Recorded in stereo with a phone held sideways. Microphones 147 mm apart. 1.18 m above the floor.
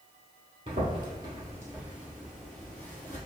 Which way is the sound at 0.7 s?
35° right (ahead or behind).